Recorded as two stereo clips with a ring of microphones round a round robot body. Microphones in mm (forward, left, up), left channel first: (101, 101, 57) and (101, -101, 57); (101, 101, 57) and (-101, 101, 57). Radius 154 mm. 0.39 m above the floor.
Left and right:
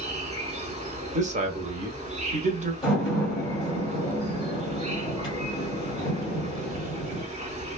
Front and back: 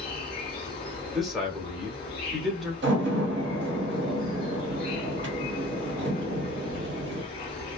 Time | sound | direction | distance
0.0 | an insect | 55° right | 1.0 m
1.1 | a man speaking | 90° right | 0.9 m
2.8 | a door slam | 160° left | 1.6 m